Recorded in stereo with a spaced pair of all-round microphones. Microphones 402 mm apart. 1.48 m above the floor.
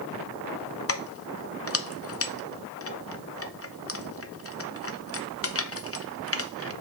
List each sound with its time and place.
0.9 s keys jangling: 35° left (ahead or behind), 0.6 m